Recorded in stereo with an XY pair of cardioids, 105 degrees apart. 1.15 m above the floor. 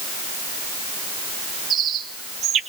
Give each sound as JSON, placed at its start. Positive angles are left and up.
{"t": 1.7, "sound": "a bird", "azimuth_deg": -60, "distance_m": 2.0}